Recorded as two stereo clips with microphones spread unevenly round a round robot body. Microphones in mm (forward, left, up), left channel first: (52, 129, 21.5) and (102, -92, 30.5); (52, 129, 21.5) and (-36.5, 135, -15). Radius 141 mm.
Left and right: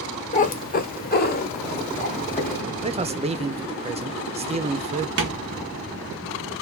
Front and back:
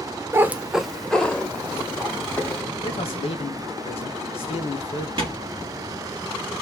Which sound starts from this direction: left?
A cat meowing, at 0.3 s.